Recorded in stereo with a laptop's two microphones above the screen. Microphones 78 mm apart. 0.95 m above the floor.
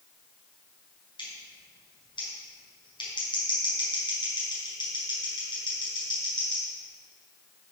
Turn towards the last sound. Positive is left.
turn(degrees=85)